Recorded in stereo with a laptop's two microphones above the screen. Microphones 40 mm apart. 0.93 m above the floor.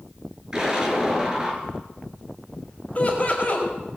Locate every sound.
0.5 s an explosion: 20° right (ahead or behind), 5.5 m
3.0 s laughter: 35° left (ahead or behind), 5 m